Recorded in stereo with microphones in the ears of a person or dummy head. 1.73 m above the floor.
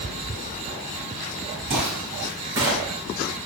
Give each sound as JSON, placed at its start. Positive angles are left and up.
{"t": 1.7, "sound": "footsteps", "side_deg": -25, "distance_m": 1.8}